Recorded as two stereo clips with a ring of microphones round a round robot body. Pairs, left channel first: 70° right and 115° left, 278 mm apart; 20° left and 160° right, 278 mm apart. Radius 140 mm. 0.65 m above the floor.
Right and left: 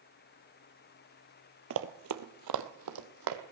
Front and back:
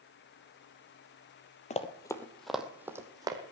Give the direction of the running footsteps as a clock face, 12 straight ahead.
9 o'clock.